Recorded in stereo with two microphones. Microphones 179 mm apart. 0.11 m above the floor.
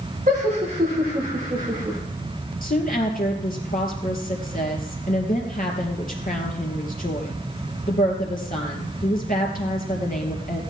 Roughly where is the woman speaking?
Left.